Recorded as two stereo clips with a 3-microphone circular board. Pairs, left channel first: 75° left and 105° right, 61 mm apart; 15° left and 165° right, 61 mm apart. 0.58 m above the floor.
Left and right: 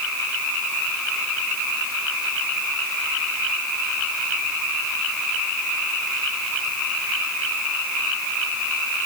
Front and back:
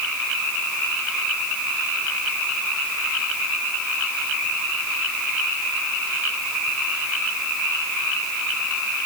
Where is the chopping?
I don't hear chopping.